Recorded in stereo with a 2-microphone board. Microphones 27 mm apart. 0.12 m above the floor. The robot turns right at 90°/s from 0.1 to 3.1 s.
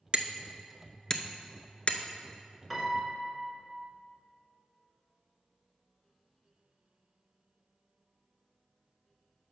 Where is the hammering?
40° right (ahead or behind), 0.5 m; by 2.0 s 45° left (ahead or behind), 0.5 m.